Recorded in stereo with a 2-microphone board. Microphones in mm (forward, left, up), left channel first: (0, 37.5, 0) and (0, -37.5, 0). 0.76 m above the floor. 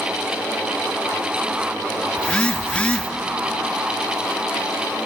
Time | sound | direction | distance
2.2 | a phone buzzing | 15° left (ahead or behind) | 0.7 m